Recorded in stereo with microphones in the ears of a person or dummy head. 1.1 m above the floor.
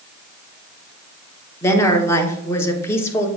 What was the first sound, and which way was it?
A woman speaking, 15° left (ahead or behind).